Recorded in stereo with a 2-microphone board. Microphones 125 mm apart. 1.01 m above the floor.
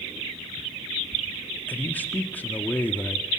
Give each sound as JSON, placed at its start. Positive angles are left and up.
{"t": 1.7, "sound": "a man speaking", "side_deg": 15, "distance_m": 1.6}